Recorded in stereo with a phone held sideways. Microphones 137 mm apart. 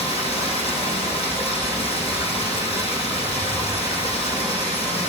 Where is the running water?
45° left (ahead or behind), 4 m.